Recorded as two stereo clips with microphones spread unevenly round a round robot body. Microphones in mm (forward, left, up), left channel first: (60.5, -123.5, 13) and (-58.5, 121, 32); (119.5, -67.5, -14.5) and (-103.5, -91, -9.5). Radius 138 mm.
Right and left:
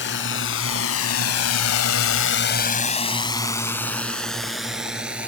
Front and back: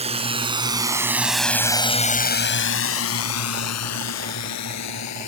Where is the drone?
110° right; by 5.3 s 30° left.